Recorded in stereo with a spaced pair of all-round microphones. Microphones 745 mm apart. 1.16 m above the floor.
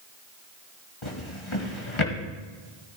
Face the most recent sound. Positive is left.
turn(degrees=40)  # may be behind; listen again after turning